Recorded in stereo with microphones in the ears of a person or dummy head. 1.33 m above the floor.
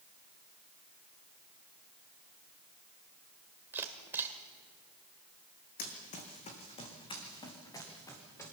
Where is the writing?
I don't hear writing.